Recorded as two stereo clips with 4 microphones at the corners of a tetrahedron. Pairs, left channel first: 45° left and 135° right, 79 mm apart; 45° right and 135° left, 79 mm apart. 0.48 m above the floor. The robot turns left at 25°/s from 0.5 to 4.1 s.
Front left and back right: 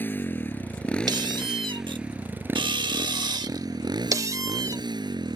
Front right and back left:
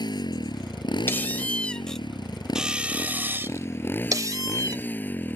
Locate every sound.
0.0 s a motorcycle: 20° right; by 5.4 s 110° right
1.1 s a squeak: 105° right; by 4.8 s straight behind